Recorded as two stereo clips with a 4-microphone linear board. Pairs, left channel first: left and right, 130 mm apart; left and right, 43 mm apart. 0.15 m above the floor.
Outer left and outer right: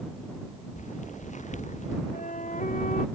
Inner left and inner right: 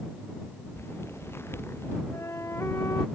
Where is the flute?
85° left.